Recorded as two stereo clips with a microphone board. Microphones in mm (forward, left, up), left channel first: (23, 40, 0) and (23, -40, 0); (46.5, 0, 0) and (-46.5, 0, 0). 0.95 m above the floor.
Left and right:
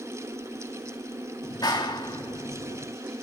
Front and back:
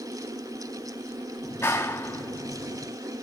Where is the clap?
65° left, 1.8 m.